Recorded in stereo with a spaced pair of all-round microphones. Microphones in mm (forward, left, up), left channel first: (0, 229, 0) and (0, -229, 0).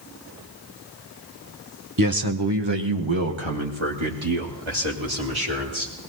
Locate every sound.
2.0 s a man speaking: 45° right (ahead or behind), 1.1 m; by 5.9 s 90° right, 5 m